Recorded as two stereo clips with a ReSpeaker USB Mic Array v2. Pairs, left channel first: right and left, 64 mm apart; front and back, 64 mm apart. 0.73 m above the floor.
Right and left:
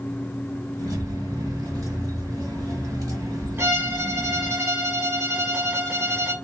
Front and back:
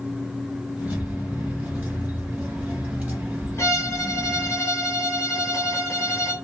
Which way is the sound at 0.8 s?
110° left.